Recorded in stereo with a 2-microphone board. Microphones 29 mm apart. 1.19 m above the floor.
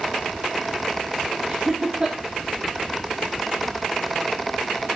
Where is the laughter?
15° right (ahead or behind), 2.5 m.